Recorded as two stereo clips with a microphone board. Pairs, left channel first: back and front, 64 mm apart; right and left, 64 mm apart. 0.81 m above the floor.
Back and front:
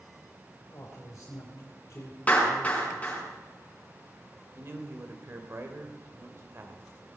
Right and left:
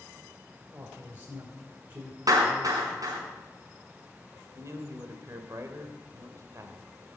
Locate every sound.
0.7 s a man speaking: 145° left, 3 m
2.3 s a clap: 115° left, 5 m
4.5 s a man speaking: 50° left, 2.5 m